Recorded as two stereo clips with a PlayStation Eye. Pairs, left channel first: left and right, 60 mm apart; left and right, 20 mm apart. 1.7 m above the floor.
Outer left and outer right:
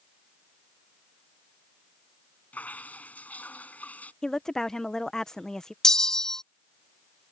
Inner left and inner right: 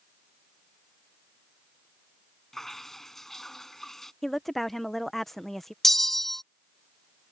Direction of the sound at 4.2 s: 10° left (ahead or behind).